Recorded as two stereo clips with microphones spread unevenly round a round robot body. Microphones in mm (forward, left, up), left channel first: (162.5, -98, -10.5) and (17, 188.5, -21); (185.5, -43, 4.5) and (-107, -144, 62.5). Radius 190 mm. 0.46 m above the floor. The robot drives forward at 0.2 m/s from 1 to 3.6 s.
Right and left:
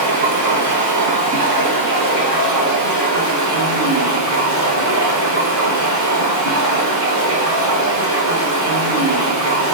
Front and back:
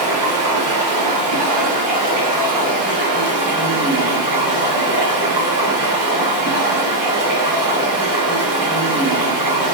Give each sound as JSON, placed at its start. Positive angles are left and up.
{"t": 0.0, "sound": "running water", "azimuth_deg": 155, "distance_m": 0.8}